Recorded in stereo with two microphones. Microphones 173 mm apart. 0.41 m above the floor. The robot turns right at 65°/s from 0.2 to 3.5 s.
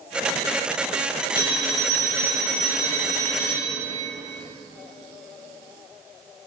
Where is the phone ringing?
25° right, 1.7 m; by 4.0 s 115° left, 1.7 m.